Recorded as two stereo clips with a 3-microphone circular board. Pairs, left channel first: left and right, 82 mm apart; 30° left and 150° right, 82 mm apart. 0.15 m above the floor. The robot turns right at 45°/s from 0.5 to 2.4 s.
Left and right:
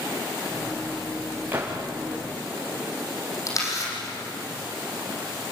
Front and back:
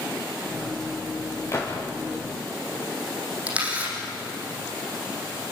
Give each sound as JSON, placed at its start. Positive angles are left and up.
{"t": 1.5, "sound": "a gunshot", "azimuth_deg": -25, "distance_m": 5.5}
{"t": 3.5, "sound": "a camera shutter", "azimuth_deg": 135, "distance_m": 7.0}